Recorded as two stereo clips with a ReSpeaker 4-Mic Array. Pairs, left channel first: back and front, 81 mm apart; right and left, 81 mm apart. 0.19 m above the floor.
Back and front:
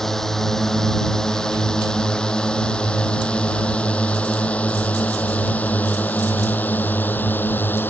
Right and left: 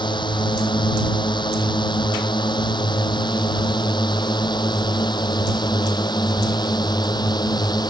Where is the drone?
95° right; by 7.9 s 115° right.